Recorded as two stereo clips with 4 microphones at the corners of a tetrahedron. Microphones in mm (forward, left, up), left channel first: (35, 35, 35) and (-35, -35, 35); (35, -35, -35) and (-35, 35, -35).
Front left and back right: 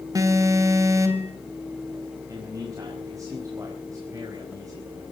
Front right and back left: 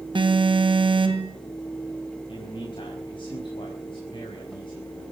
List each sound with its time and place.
0.1 s an alarm: 170° left, 3 m
2.3 s a man speaking: 80° right, 5 m